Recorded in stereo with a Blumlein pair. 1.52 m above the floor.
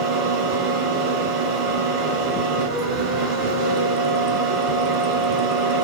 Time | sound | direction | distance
0.0 | a fan | 25° right | 3 m